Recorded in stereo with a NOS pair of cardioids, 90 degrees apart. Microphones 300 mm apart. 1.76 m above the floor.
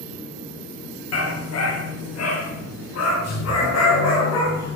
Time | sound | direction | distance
1.1 | a dog barking | 55° left | 8 m